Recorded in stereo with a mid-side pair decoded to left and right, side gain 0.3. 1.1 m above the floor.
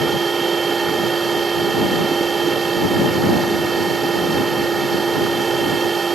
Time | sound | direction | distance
0.0 | a machine running | 55° right | ?